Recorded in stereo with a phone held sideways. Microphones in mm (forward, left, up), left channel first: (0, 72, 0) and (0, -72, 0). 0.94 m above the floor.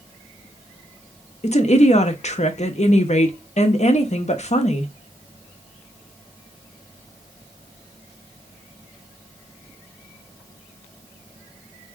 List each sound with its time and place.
1.4 s a woman speaking: 55° left (ahead or behind), 0.8 m